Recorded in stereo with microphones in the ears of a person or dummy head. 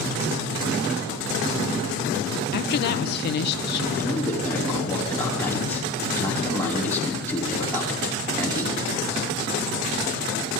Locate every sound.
2.5 s a woman speaking: 55° left (ahead or behind), 0.8 m
4.0 s a man speaking: 15° left (ahead or behind), 5.5 m